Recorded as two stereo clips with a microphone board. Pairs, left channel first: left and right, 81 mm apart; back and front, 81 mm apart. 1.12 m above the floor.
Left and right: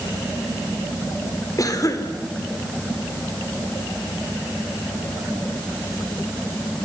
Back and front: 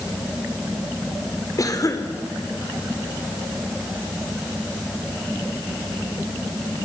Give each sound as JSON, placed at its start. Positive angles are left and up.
{"t": 1.6, "sound": "a cough", "azimuth_deg": 135, "distance_m": 4.0}